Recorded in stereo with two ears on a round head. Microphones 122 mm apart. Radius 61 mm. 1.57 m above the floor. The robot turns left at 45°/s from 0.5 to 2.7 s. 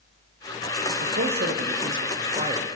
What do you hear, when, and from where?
1.0 s a man speaking: 75° right, 1.0 m; by 2.7 s 150° right, 1.0 m